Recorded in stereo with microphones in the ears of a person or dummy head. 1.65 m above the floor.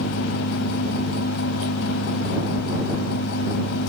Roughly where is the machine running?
Left.